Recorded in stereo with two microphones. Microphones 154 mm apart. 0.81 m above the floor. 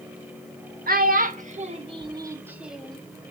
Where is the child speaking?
65° right (ahead or behind), 1.3 m; by 3.0 s 5° left (ahead or behind), 1.1 m.